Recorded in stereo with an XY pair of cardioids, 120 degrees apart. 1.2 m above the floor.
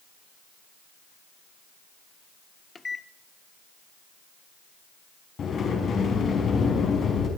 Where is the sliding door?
45° left, 5 m.